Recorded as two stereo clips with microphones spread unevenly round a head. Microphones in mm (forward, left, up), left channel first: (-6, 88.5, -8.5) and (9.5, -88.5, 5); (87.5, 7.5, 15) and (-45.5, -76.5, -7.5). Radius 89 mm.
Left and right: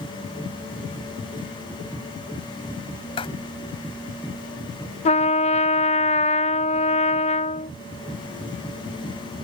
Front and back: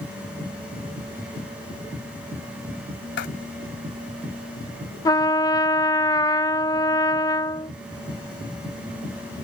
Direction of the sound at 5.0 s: 100° left.